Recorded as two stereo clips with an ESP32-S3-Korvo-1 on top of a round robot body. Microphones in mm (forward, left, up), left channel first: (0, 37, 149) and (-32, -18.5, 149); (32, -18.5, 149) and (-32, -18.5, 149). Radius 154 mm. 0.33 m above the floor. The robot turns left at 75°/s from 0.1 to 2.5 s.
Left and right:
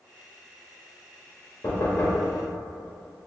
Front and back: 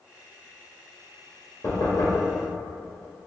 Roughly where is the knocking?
Ahead left.